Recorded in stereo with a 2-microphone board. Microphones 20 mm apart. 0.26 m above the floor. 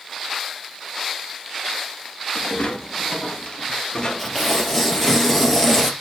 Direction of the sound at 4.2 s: 10° left (ahead or behind).